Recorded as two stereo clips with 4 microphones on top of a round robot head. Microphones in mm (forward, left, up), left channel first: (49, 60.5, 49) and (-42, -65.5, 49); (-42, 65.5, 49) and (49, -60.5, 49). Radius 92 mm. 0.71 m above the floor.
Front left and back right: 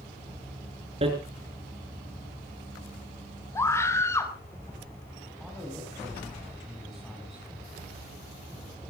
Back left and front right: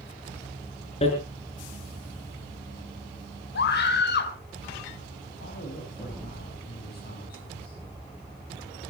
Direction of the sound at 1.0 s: Straight behind.